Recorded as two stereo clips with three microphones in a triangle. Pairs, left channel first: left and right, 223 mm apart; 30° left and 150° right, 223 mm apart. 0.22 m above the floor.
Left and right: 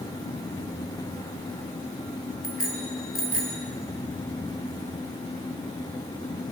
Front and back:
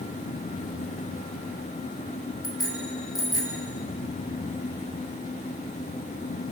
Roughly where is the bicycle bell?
Left.